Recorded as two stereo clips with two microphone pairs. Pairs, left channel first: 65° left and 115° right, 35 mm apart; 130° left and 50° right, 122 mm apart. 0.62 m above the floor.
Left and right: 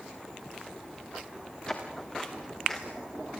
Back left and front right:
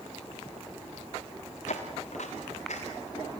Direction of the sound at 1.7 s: 130° left.